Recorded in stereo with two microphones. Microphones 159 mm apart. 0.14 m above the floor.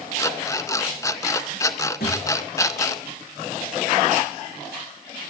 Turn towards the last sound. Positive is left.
turn(degrees=80)